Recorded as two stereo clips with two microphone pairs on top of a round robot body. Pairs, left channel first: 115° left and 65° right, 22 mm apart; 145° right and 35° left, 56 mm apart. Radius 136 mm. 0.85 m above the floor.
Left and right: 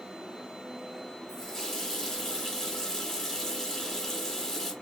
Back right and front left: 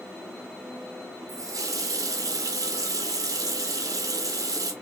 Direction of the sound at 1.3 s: 40° left.